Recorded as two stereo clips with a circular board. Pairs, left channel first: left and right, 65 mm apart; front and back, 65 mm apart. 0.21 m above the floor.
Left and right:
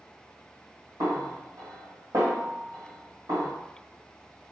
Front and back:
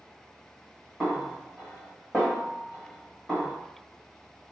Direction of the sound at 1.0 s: 80° right.